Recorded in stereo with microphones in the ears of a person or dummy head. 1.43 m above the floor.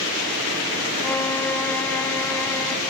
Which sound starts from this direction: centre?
A violin, at 1.0 s.